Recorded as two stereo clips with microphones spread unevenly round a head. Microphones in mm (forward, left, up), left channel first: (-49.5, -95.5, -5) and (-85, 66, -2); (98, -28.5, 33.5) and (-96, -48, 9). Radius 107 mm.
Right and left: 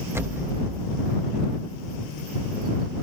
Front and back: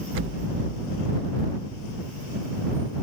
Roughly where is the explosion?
Behind.